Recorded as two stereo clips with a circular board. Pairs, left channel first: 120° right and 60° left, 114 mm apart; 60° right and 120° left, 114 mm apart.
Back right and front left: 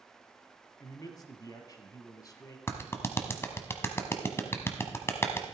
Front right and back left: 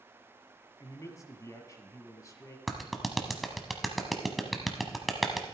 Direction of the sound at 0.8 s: 95° right.